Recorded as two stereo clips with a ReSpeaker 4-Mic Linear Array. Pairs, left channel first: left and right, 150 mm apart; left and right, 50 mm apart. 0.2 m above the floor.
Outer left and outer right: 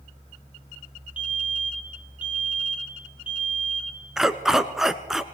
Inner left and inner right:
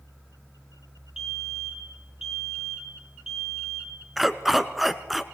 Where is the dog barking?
Centre (ahead or behind), 0.9 m.